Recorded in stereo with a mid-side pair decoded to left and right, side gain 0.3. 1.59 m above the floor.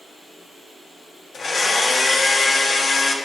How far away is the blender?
About 1.2 m.